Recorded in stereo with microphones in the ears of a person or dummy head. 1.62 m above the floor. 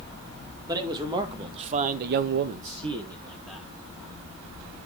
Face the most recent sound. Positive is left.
turn(degrees=-5)  # may be behind; listen again after turning